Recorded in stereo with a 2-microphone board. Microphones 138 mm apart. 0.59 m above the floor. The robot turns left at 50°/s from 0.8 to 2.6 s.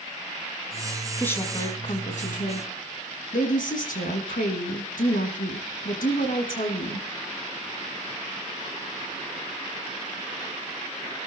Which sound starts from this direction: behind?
A woman speaking, at 1.2 s.